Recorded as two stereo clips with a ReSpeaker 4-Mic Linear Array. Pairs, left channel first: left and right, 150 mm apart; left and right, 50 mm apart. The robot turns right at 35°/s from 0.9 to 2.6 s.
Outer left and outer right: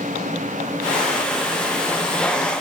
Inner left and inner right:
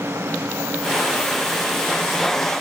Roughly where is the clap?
No clap in this recording.